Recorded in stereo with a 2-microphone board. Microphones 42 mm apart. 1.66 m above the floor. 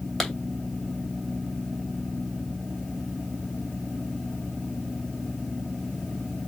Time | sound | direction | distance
0.2 | a clap | 5° left (ahead or behind) | 2.5 m